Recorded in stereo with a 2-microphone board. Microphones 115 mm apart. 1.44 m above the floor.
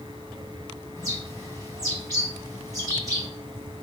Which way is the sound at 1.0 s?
30° right (ahead or behind).